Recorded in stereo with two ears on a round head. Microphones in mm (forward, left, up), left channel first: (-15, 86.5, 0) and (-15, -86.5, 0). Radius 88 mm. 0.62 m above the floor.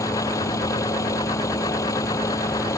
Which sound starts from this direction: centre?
A vehicle, at 0.0 s.